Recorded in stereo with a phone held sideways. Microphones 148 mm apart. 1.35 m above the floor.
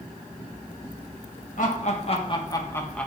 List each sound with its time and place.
1.6 s laughter: 65° left (ahead or behind), 1.0 m; by 3.1 s 5° left (ahead or behind), 1.1 m